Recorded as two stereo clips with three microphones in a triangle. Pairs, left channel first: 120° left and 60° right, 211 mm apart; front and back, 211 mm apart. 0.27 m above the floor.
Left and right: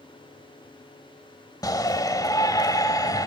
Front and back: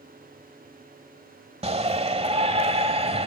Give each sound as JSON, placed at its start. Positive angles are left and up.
{"t": 1.6, "sound": "a shout", "azimuth_deg": 175, "distance_m": 1.0}